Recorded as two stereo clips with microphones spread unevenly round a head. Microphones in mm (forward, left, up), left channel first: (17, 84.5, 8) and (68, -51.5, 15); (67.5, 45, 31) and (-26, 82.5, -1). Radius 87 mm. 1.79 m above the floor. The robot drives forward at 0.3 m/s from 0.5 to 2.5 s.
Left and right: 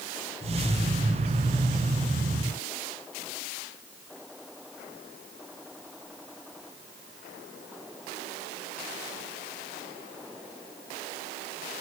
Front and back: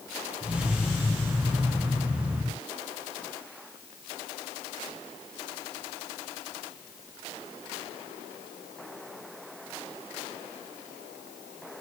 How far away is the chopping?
No chopping in this recording.